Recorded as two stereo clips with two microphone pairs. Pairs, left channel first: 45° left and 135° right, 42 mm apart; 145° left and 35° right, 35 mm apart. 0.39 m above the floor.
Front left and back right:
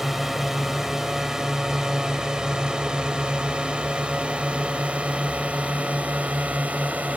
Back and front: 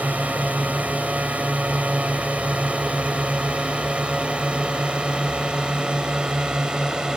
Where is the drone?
50° right; by 7.2 s 95° right.